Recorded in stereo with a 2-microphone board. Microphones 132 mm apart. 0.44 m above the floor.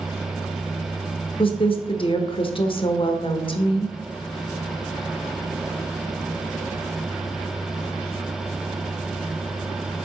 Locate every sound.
1.4 s a woman speaking: 45° left (ahead or behind), 1.0 m